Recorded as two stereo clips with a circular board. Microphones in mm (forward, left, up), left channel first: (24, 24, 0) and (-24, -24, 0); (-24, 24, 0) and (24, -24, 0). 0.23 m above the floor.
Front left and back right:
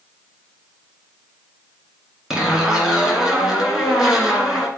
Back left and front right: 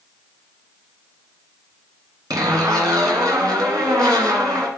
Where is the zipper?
55° right, 1.8 m.